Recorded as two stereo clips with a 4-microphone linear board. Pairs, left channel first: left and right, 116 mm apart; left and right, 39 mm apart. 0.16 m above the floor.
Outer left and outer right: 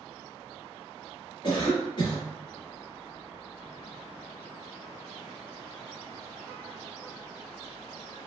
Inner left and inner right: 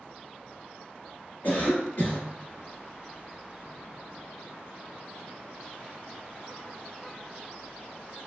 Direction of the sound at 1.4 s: 40° left (ahead or behind).